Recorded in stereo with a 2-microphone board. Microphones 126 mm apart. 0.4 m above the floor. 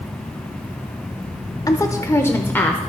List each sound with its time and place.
1.7 s a woman speaking: 30° left (ahead or behind), 0.8 m; by 2.8 s 10° left (ahead or behind), 0.9 m